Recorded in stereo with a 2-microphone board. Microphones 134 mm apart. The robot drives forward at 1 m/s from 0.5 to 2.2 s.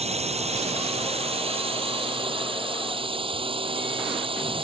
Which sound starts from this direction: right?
A drone, at 0.0 s.